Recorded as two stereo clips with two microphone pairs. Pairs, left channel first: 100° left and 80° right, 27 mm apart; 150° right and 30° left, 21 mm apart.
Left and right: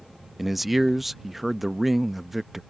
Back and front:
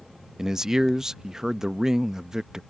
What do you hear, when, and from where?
0.4 s a man speaking: 10° right